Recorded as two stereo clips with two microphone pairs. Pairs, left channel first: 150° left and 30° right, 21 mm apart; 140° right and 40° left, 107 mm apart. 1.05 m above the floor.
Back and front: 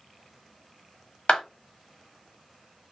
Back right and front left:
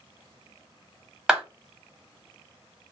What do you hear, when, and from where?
1.3 s a clap: 125° left, 1.2 m